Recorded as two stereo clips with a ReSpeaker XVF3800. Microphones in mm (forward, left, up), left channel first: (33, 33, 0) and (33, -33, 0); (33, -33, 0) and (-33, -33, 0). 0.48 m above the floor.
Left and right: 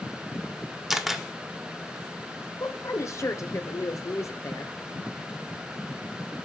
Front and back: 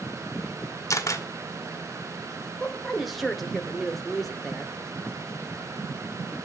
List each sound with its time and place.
0.9 s a camera shutter: 5° right, 1.4 m
2.6 s a woman speaking: 95° left, 1.3 m